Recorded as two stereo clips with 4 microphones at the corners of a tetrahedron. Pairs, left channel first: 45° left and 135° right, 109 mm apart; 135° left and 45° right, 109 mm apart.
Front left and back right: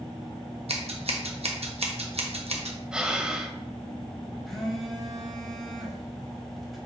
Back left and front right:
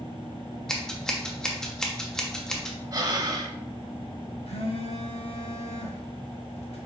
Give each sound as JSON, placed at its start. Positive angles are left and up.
{"t": 0.7, "sound": "scissors", "azimuth_deg": -140, "distance_m": 1.1}
{"t": 2.9, "sound": "breathing", "azimuth_deg": -60, "distance_m": 0.8}
{"t": 4.5, "sound": "a phone buzzing", "azimuth_deg": 135, "distance_m": 1.5}